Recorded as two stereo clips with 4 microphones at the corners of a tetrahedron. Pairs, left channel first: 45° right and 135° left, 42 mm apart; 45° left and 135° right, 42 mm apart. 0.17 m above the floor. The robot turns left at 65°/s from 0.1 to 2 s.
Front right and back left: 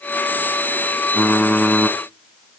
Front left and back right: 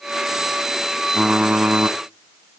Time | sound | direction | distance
1.1 | typing on a keyboard | 60° right | 0.8 m